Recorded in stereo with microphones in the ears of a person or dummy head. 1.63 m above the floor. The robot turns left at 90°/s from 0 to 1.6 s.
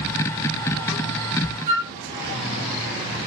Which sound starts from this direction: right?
A flute, at 1.7 s.